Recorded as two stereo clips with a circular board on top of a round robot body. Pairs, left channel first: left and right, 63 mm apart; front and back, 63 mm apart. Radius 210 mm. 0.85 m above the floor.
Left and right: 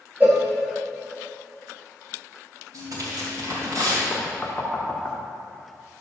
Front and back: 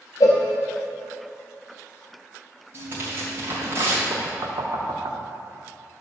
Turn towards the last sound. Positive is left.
turn(degrees=160)